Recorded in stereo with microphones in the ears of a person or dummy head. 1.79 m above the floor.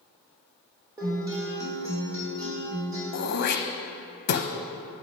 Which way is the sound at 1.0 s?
20° right (ahead or behind).